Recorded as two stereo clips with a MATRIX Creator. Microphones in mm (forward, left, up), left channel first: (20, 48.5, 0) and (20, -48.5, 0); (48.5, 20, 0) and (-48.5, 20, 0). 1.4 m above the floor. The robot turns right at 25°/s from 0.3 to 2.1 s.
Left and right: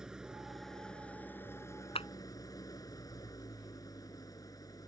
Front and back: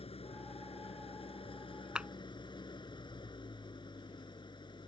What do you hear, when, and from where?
0.0 s an engine running: 5° right; by 4.9 s 40° left
1.9 s a clap: 100° left; by 2.1 s 105° left